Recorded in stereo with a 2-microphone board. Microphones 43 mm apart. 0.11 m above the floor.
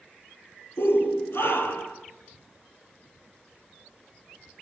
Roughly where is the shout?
Left.